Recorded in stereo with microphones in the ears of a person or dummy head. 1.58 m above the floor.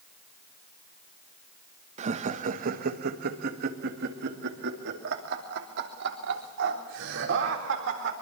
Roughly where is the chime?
No chime in this recording.